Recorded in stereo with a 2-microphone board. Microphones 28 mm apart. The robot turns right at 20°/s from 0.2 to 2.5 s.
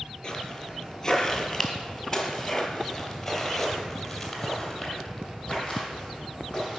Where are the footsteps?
25° left (ahead or behind), 2.0 m; by 6.8 s 10° left (ahead or behind), 3.5 m.